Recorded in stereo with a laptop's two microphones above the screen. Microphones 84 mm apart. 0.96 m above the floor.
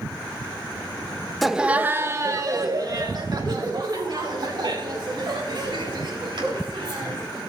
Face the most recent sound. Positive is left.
turn(degrees=-70)  # may be behind; listen again after turning